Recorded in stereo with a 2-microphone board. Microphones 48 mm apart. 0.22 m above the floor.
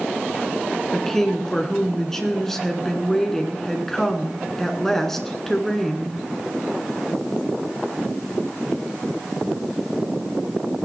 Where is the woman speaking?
10° left (ahead or behind), 2 m.